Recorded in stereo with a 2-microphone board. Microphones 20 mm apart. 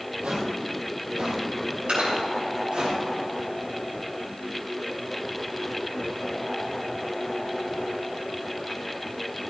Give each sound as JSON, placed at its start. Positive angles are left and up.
{"t": 0.2, "sound": "footsteps", "side_deg": -60, "distance_m": 2.5}
{"t": 1.9, "sound": "dripping", "side_deg": -60, "distance_m": 5.5}